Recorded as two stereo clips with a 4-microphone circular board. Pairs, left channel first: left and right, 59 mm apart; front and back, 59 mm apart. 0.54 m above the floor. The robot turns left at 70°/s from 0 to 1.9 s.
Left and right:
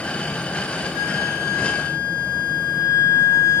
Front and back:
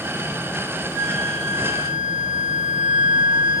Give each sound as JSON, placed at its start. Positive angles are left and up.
{"t": 0.9, "sound": "a flute", "azimuth_deg": -155, "distance_m": 1.2}